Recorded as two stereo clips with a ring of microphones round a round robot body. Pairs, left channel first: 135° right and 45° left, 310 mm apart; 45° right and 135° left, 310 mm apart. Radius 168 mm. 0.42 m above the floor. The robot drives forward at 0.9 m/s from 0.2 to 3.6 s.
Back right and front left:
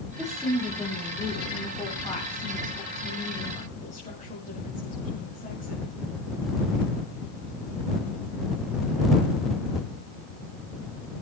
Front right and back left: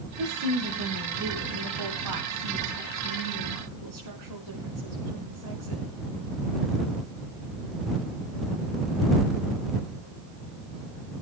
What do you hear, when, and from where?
0.2 s a woman speaking: 135° left, 3.5 m; by 6.0 s 155° left, 5.5 m